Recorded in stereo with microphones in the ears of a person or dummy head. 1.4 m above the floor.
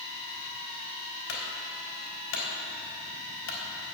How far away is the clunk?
About 4 m.